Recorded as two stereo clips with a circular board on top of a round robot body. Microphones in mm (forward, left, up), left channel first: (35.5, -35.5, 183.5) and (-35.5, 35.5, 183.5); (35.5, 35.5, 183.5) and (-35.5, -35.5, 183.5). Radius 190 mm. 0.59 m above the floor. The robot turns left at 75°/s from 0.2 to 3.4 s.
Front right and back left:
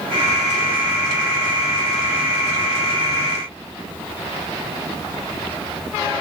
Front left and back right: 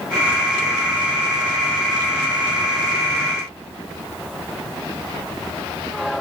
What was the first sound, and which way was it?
Only background noise.